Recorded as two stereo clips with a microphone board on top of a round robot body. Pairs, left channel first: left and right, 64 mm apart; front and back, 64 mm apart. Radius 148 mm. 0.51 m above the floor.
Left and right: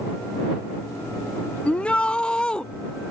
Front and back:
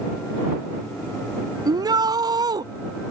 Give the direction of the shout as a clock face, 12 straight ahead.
7 o'clock.